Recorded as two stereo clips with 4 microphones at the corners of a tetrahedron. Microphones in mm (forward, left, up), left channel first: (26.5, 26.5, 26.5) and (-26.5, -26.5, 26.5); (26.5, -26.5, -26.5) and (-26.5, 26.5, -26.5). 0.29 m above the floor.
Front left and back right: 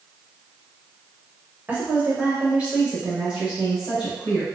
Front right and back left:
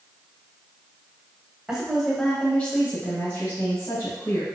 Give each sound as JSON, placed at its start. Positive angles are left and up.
{"t": 1.7, "sound": "a woman speaking", "azimuth_deg": -165, "distance_m": 1.1}